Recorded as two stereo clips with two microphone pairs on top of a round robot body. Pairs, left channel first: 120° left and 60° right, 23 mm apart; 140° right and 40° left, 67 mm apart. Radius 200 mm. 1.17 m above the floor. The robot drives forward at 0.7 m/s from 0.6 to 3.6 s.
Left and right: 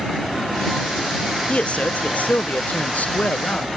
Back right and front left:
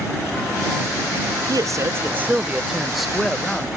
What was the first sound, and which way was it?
A man speaking, 75° left.